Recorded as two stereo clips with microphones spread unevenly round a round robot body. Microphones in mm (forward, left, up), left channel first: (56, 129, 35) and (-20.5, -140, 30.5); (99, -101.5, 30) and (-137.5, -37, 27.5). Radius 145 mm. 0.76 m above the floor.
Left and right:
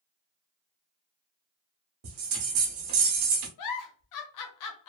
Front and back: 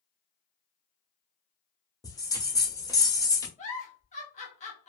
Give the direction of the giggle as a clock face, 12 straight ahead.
10 o'clock.